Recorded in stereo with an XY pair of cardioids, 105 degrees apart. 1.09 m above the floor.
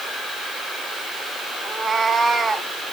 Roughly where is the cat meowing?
Ahead right.